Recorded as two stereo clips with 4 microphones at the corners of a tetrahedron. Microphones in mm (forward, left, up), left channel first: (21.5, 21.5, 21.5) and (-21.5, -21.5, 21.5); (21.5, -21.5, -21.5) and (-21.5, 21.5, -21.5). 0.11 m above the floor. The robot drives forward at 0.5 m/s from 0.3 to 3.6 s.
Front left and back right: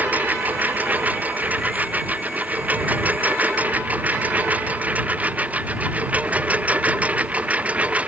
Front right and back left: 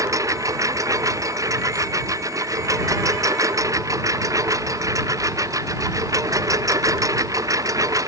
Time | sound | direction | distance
0.0 | a lawn mower | 160° left | ?